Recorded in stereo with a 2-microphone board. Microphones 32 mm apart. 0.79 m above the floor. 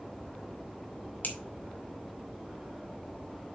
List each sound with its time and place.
1.2 s a finger snap: 70° left (ahead or behind), 2 m